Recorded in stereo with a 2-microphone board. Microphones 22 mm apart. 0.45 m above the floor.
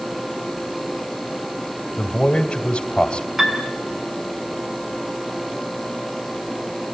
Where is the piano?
15° right (ahead or behind), 5.5 m.